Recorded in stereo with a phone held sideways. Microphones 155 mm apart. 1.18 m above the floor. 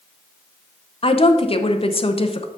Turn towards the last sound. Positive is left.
turn(degrees=40)  # may be behind; listen again after turning